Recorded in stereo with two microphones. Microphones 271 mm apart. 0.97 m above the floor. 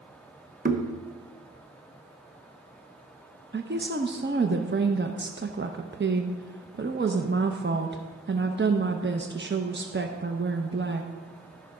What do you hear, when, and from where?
0.7 s knocking: 35° right (ahead or behind), 0.8 m
3.5 s a woman speaking: 40° right (ahead or behind), 0.6 m